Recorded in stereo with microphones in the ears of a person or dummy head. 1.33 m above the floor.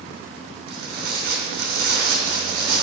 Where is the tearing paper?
65° right (ahead or behind), 3 m.